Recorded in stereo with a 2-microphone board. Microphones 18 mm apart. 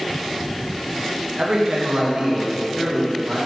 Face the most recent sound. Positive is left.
turn(degrees=-20)  # may be behind; listen again after turning